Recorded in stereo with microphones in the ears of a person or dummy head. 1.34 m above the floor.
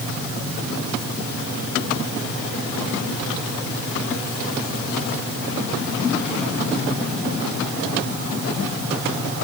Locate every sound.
Only background noise.